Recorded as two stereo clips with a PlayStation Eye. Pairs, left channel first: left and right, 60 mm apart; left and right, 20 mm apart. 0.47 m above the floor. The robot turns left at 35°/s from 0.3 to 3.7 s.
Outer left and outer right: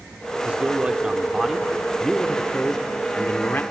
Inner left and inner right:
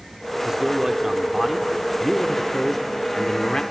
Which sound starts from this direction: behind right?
A man speaking, at 0.5 s.